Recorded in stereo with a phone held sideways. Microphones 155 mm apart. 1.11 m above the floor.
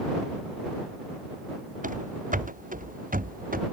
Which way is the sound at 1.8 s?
55° right (ahead or behind).